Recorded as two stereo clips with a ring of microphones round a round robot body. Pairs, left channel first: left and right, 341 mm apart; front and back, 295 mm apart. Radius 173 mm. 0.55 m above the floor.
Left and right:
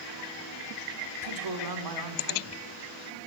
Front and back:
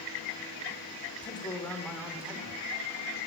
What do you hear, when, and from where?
1.2 s a man speaking: 70° right, 1.5 m; by 2.6 s 105° right, 1.7 m